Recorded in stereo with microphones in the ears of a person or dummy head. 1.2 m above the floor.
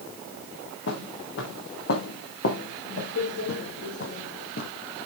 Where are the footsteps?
75° left (ahead or behind), 4.5 m; by 4.7 s 45° left (ahead or behind), 2.5 m.